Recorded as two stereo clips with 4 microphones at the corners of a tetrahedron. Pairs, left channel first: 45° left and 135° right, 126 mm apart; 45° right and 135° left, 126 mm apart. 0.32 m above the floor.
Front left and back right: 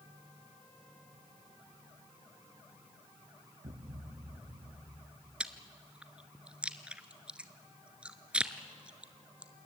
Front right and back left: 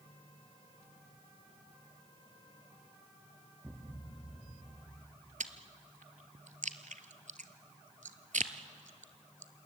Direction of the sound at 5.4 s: 145° left.